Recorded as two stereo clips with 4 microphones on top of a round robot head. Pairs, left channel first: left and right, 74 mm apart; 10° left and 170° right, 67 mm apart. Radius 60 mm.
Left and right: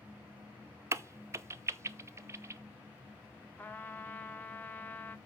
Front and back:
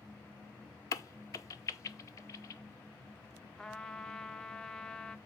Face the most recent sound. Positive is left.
turn(degrees=75)